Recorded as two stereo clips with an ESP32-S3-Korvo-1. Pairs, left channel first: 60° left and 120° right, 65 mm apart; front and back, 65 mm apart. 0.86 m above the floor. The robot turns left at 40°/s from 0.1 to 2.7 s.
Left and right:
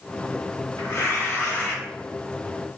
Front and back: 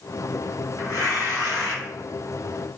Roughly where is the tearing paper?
Ahead left.